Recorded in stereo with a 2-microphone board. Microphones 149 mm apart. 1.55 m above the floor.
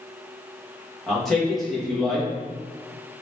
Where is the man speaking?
Centre (ahead or behind), 1.5 m.